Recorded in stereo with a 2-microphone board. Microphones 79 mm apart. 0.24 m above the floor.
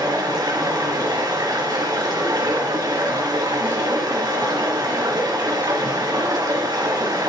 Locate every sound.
0.0 s running water: 55° right (ahead or behind), 3 m